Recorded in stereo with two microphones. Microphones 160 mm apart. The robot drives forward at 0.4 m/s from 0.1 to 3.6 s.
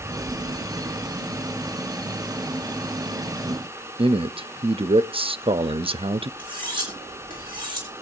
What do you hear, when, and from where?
4.0 s a man speaking: 35° right (ahead or behind), 0.5 m
6.4 s cutlery clinking: 30° right (ahead or behind), 5.5 m